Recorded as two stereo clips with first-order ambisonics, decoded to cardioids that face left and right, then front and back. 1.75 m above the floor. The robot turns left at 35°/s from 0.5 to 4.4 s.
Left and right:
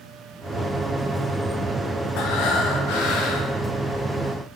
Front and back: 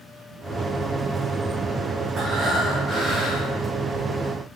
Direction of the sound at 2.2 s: 115° left.